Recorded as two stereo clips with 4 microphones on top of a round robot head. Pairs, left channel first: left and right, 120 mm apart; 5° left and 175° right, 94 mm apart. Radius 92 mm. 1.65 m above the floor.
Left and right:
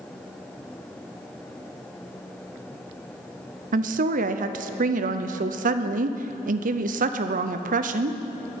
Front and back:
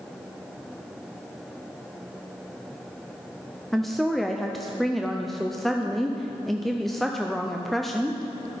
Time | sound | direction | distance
3.7 | a woman speaking | 80° right | 0.6 m